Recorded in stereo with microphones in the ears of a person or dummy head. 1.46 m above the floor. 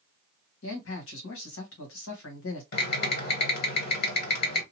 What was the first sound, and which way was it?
A man speaking, 75° left (ahead or behind).